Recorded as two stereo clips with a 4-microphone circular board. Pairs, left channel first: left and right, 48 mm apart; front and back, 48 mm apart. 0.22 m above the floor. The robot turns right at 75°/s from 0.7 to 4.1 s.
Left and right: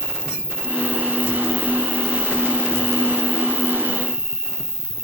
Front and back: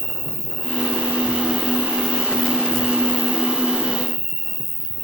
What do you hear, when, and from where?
0.0 s an insect: 40° right, 2 m; by 5.0 s 145° right, 2 m